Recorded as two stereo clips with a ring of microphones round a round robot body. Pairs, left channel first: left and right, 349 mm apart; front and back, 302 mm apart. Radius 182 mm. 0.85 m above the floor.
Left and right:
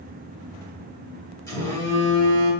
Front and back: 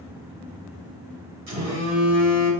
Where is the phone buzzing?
170° left, 2 m.